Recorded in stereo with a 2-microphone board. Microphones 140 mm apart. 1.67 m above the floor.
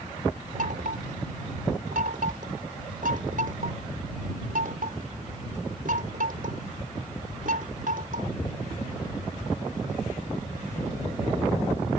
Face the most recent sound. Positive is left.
turn(degrees=-75)  # may be behind; listen again after turning